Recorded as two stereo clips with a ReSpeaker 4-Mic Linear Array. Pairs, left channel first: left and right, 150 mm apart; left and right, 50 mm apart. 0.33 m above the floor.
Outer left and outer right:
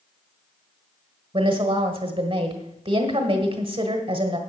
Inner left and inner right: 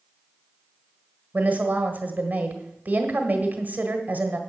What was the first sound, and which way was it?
A woman speaking, 40° right (ahead or behind).